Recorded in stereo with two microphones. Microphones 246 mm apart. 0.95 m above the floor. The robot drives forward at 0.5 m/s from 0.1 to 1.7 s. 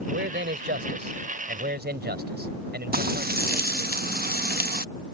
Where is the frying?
40° right (ahead or behind).